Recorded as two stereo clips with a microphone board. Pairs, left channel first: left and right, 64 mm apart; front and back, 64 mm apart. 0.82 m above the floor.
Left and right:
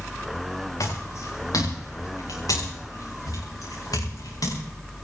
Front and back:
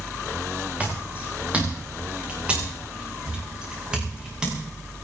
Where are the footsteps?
115° left, 7 m; by 4.6 s 100° left, 8 m.